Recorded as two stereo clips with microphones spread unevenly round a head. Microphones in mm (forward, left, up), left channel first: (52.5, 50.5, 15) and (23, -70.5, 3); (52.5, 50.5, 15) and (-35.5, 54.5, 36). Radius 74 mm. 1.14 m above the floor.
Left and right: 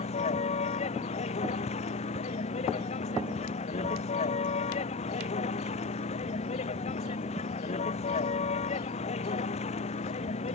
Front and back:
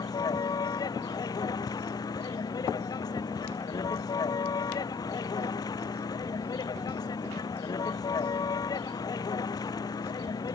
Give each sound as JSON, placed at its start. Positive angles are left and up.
{"t": 0.0, "sound": "a vehicle", "azimuth_deg": 40}